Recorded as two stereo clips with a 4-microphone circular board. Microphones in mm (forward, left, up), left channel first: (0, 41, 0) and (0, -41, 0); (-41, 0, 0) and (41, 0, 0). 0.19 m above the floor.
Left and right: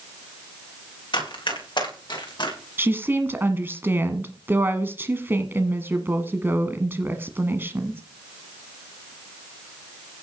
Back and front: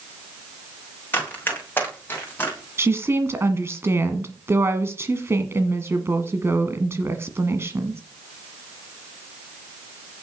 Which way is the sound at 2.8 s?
40° right.